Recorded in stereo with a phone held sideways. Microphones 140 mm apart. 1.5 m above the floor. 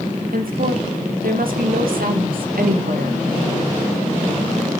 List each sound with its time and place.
0.3 s a woman speaking: 85° right, 1.9 m